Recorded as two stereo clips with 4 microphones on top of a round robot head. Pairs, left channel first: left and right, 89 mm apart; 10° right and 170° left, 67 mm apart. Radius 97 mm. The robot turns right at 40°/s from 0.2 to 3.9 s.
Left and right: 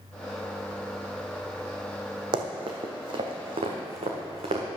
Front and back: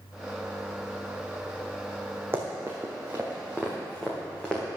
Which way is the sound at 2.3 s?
120° right.